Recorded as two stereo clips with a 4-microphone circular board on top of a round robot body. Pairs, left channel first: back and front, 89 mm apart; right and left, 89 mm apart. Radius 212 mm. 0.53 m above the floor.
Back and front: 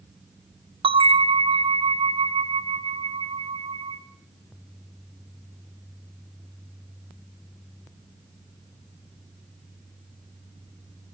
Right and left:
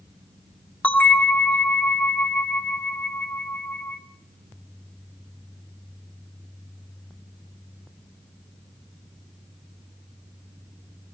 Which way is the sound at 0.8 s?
15° right.